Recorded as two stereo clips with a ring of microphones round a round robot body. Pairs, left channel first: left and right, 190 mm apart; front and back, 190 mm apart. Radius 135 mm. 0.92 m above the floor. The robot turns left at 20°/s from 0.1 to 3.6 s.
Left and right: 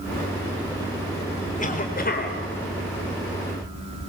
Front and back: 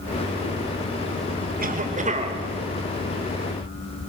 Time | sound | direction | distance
1.6 | a cough | 140° left | 4 m